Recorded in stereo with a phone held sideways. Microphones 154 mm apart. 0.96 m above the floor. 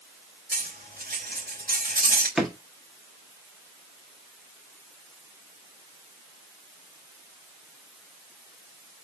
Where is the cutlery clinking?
80° right, 3 m.